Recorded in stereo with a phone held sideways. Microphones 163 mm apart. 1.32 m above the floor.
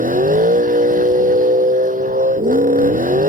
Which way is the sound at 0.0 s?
55° right (ahead or behind).